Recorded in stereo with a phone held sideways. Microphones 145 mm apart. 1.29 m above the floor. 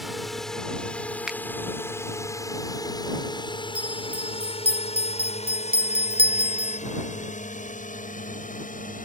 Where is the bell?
40° right (ahead or behind).